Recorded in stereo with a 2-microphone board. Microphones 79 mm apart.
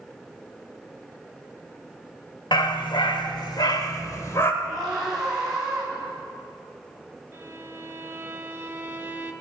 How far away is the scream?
About 7 m.